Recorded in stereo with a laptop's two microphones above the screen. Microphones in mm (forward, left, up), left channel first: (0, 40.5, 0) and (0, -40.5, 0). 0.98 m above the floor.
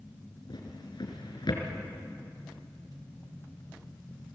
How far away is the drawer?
About 4 m.